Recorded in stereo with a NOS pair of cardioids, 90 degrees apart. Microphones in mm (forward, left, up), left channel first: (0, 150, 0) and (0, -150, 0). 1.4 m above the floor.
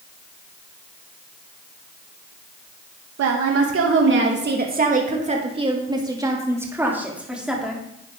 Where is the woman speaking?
65° right, 2.0 m; by 7.8 s straight ahead, 4 m.